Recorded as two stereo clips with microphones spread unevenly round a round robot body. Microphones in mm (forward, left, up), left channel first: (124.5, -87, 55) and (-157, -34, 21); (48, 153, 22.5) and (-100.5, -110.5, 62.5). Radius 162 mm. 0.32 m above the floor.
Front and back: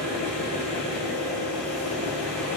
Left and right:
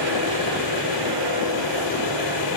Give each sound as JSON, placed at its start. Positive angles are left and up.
{"t": 0.0, "sound": "an engine running", "azimuth_deg": 80, "distance_m": 6.5}